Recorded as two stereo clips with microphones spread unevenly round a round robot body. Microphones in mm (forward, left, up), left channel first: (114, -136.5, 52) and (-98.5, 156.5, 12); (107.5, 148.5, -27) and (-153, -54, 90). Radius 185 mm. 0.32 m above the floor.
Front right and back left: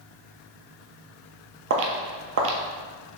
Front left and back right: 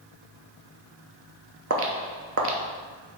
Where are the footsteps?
175° right, 0.5 m.